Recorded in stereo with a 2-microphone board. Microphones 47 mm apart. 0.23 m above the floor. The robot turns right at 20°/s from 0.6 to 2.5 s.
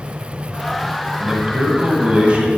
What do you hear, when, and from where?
1.2 s a man speaking: 15° right (ahead or behind), 1.4 m; by 2.5 s 25° right (ahead or behind), 1.4 m